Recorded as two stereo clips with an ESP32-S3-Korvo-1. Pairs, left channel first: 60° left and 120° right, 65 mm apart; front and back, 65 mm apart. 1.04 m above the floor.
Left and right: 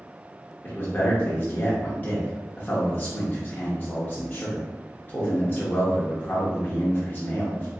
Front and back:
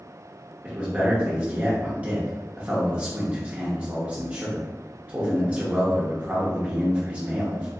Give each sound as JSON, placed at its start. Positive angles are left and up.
{"t": 0.6, "sound": "a man speaking", "azimuth_deg": 115, "distance_m": 0.8}